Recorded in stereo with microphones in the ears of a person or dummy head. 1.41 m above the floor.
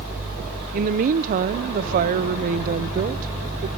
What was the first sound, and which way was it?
A woman speaking, 50° right (ahead or behind).